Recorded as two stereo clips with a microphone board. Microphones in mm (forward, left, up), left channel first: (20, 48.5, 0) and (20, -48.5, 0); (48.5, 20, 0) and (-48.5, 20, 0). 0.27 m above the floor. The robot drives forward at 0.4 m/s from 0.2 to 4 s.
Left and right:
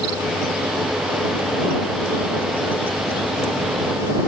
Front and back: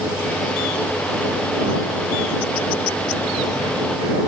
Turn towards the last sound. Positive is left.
No sound to turn to.